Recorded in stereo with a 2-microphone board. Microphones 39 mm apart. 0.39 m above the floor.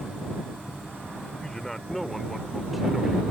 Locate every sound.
1.4 s a man speaking: 10° left (ahead or behind); by 3.2 s 10° right (ahead or behind)